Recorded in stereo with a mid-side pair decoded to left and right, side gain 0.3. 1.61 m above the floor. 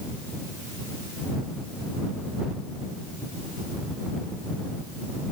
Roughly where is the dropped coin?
I don't hear a dropped coin.